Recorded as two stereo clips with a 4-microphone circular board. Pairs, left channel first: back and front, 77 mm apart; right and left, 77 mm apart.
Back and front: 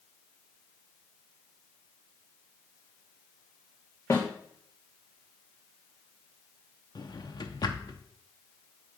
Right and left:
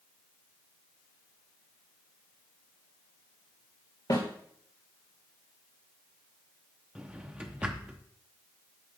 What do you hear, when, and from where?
4.1 s a snare drum: 125° right, 2 m
7.0 s a drawer: 165° left, 0.9 m